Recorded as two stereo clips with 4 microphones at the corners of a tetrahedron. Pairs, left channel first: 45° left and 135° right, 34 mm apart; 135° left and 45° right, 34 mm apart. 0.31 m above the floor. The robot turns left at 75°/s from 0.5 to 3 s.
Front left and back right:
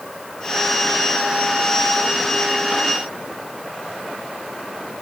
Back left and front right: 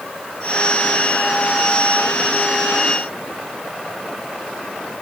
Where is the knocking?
No knocking in this recording.